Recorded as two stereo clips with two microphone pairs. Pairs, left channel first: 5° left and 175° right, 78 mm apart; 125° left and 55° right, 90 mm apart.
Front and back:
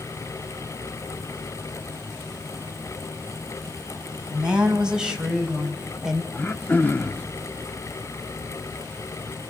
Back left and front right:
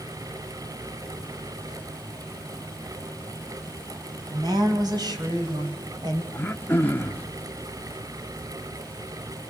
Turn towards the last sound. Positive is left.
turn(degrees=65)